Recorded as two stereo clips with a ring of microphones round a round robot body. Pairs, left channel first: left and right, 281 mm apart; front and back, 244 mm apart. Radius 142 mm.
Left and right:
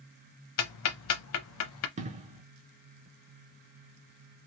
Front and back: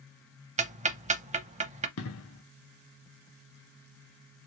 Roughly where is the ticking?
Behind left.